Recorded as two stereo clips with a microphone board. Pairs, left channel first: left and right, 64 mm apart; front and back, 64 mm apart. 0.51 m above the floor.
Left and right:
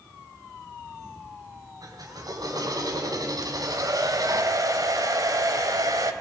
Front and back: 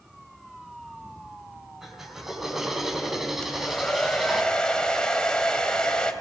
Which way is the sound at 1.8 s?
95° right.